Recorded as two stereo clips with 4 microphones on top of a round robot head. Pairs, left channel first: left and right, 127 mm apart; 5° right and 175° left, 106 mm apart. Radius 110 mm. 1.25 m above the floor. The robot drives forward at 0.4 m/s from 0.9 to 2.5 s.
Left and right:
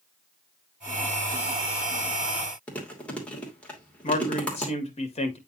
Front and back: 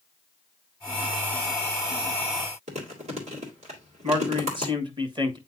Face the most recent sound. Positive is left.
turn(degrees=130)